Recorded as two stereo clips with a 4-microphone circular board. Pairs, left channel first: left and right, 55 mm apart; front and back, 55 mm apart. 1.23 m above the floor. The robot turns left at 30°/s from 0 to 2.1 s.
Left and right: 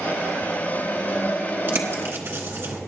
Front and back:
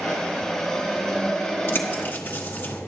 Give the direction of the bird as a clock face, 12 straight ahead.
1 o'clock.